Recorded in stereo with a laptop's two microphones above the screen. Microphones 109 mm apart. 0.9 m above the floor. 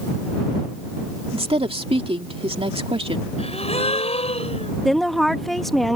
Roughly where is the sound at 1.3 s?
Right.